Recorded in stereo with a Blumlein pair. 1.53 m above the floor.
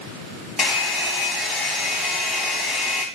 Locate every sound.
0.6 s a hair dryer: 15° left, 0.8 m